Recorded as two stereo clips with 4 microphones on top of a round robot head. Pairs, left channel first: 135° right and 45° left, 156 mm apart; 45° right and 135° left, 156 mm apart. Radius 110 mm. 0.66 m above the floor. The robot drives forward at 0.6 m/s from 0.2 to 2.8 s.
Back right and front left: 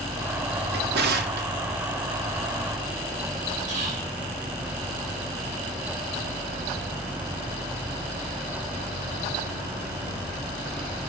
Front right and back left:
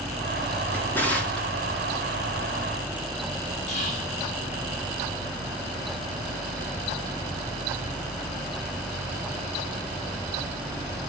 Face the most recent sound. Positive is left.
turn(degrees=0)